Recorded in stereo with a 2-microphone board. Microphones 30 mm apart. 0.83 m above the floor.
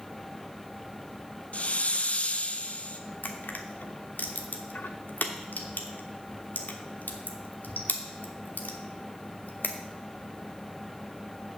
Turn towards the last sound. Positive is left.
turn(degrees=90)